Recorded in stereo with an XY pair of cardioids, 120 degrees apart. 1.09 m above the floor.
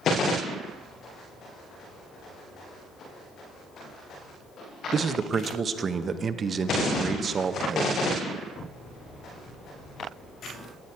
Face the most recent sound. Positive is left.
turn(degrees=-40)